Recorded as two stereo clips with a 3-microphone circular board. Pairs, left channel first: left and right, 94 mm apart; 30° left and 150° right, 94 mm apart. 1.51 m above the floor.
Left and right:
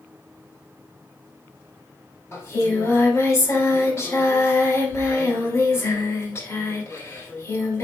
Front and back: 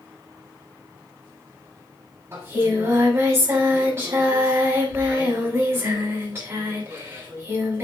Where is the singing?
150° left, 6 m.